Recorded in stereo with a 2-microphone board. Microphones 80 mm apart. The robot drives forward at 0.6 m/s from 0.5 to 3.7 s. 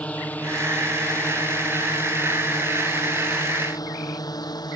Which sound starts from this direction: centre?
A drone, at 0.0 s.